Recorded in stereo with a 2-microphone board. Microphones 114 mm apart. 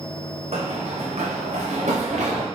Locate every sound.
0.5 s running footsteps: 65° right (ahead or behind), 1.5 m; by 2.5 s 85° right, 2.5 m